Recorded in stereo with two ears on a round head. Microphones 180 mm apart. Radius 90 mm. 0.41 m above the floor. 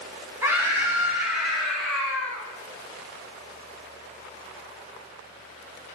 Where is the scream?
15° right (ahead or behind), 3.5 m; by 2.4 s 10° left (ahead or behind), 4 m.